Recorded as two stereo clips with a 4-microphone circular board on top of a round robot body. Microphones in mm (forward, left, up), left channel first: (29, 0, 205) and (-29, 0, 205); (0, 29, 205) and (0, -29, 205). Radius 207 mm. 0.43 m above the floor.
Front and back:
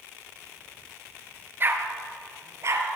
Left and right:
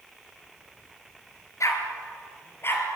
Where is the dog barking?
125° left, 3 m; by 2.9 s 145° left, 4 m.